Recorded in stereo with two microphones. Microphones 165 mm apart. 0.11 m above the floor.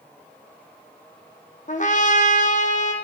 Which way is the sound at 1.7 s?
45° left (ahead or behind).